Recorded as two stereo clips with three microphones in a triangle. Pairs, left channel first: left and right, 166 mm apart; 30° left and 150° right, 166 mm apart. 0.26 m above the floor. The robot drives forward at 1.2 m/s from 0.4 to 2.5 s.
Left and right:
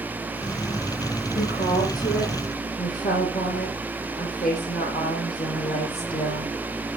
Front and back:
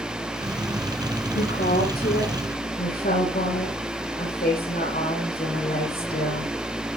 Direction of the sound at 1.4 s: 50° left.